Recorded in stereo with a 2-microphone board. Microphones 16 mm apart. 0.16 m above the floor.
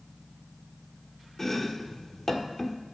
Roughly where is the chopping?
Left.